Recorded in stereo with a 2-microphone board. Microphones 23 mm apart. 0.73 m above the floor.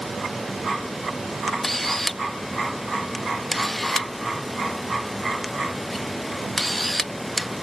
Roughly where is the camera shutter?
Centre.